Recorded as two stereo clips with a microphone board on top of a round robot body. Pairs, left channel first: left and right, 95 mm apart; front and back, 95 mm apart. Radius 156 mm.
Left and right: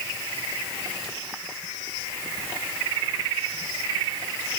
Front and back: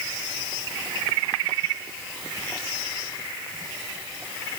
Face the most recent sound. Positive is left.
No sound to turn to.